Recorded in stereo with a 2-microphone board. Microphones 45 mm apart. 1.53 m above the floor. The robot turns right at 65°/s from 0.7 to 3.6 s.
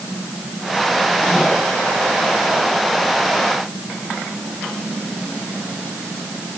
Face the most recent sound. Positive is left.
No sound to turn to.